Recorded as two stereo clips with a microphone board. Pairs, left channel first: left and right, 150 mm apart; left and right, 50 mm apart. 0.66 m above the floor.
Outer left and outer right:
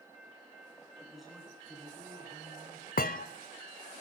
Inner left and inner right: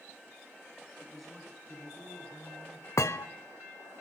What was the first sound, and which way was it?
A man speaking, centre (ahead or behind).